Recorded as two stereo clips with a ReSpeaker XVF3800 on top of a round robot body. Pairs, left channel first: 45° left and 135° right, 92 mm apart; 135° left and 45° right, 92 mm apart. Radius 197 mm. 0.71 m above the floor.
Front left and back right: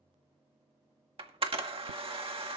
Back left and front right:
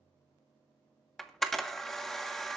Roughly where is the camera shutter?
Behind right.